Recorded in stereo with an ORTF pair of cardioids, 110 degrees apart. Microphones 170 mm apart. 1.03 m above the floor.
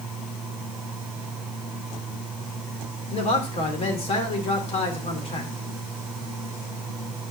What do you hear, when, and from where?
0.0 s a fan: straight ahead, 4 m
3.1 s a man speaking: 35° left, 3.5 m